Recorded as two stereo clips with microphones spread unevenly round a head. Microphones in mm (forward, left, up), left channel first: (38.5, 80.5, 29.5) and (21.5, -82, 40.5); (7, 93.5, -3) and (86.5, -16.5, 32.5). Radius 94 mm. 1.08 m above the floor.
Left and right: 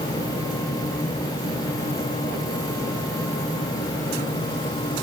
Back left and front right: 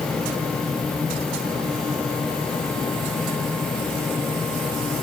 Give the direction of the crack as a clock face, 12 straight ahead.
I don't hear a crack.